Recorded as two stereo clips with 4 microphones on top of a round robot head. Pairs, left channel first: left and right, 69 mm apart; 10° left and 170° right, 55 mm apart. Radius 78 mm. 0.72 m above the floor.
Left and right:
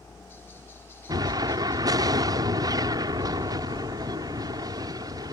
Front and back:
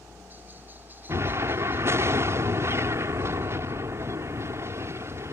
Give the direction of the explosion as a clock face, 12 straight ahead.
4 o'clock.